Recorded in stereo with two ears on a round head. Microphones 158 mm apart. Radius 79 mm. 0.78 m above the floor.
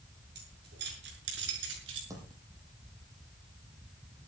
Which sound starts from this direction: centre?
A dropped coin, at 2.1 s.